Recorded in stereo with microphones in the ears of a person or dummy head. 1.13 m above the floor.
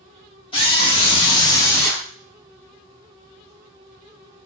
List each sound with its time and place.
0.5 s a scream: 25° left (ahead or behind), 1.1 m; by 2.1 s centre (ahead or behind), 0.7 m